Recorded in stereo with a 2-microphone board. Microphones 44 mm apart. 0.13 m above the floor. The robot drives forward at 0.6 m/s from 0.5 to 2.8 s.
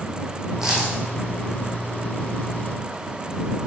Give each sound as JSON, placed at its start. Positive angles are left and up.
{"t": 0.6, "sound": "a dropped coin", "side_deg": -15, "distance_m": 2.5}